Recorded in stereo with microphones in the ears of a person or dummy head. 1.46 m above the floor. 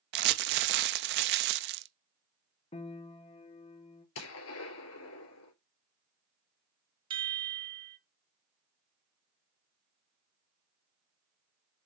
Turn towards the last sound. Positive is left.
turn(degrees=-25)  # may be behind; listen again after turning